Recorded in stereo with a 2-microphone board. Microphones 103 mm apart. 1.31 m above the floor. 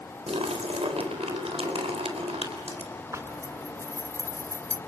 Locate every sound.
0.3 s a splash: 80° right, 4 m
3.1 s a zipper: 30° right (ahead or behind), 1.3 m